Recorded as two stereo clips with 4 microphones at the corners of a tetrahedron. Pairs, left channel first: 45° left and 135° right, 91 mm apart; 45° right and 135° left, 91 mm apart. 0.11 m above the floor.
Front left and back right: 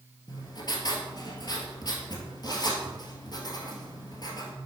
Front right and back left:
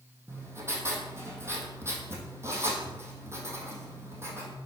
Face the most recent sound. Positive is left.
turn(degrees=80)